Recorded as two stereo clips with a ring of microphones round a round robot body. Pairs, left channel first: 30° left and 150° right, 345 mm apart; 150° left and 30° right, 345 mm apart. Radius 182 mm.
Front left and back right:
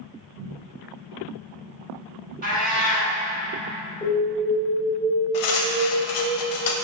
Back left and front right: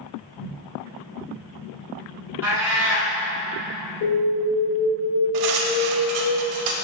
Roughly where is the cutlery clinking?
Ahead.